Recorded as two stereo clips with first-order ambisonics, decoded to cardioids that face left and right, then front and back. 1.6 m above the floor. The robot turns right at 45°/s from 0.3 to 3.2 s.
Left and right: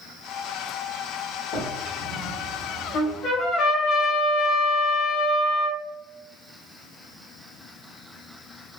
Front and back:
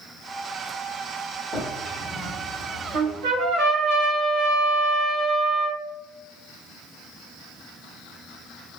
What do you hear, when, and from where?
1.5 s a drawer: 90° left, 1.4 m; by 3.6 s 165° left, 1.4 m
2.9 s a trumpet: 130° left, 1.3 m; by 5.8 s 140° left, 1.3 m